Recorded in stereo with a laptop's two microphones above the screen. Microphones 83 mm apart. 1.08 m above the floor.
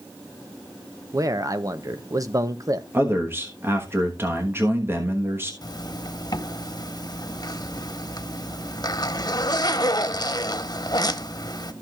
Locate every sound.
1.1 s a man speaking: 45° right (ahead or behind), 0.6 m
2.9 s a man speaking: 30° right (ahead or behind), 1.2 m
5.6 s a zipper: 55° left (ahead or behind), 1.0 m